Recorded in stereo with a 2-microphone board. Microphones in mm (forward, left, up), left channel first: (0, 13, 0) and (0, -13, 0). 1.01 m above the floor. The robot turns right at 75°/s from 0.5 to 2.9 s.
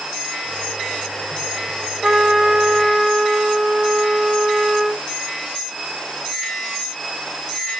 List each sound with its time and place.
2.0 s a trumpet: 45° right, 0.8 m; by 5.0 s 20° left, 0.8 m